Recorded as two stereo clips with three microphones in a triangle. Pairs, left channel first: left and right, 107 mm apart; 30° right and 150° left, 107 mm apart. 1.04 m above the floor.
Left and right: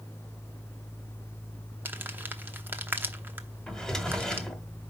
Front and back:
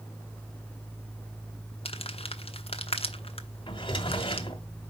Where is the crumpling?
20° right, 0.9 m.